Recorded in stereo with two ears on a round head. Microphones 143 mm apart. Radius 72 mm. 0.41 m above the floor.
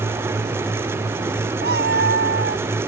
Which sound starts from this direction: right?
A cat meowing, at 1.6 s.